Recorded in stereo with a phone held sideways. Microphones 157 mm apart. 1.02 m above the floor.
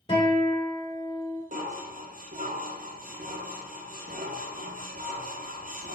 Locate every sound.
0.1 s a guitar: 30° left (ahead or behind), 2 m
1.5 s dishes clattering: 60° right (ahead or behind), 0.6 m